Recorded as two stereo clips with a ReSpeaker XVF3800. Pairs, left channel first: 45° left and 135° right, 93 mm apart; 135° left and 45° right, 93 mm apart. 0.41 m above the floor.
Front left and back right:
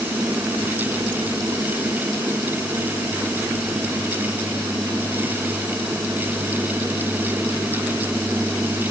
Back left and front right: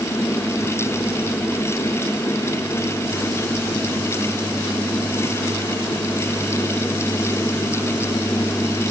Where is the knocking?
I don't hear knocking.